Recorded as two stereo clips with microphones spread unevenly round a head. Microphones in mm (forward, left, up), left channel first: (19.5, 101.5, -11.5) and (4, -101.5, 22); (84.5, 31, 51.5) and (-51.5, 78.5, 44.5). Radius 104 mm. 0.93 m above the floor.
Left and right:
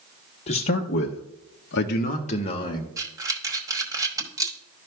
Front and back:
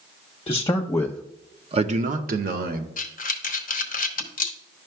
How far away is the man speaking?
About 1.0 m.